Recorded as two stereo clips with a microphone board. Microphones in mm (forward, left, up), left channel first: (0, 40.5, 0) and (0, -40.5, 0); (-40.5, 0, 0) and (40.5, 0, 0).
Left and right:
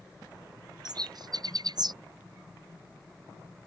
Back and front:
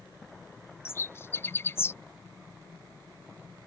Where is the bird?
120° right.